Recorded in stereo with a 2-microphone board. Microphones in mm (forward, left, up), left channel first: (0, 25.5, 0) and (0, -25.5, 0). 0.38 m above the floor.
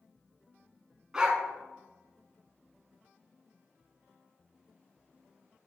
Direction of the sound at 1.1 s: 15° right (ahead or behind).